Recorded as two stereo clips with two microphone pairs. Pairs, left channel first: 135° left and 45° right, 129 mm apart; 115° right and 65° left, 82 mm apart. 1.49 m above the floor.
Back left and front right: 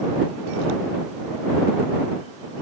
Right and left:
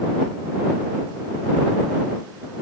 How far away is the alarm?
I don't hear an alarm.